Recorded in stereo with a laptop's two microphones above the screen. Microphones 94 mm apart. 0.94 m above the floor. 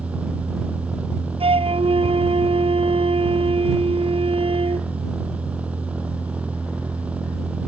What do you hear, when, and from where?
0.0 s a machine running: 15° right (ahead or behind)
1.4 s a flute: 85° right